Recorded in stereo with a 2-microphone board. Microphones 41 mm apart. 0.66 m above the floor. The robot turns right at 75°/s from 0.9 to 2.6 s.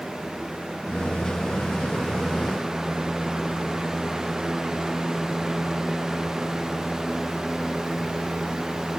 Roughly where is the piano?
I don't hear a piano.